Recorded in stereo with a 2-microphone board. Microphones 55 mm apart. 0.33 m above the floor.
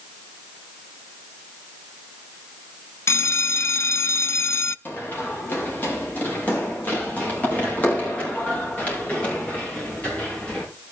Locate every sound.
3.1 s a bell: 60° left (ahead or behind), 0.5 m
4.8 s running footsteps: 35° left (ahead or behind), 8 m; by 10.6 s 25° left (ahead or behind), 11.5 m